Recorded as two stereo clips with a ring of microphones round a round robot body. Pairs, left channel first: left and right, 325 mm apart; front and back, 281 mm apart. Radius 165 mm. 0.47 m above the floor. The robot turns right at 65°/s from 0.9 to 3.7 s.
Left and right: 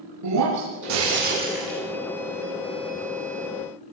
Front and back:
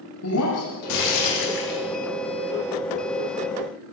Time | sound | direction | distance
0.2 | breaking glass | 50° right | 7 m